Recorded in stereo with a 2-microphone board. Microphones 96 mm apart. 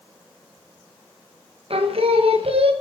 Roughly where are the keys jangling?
I don't hear keys jangling.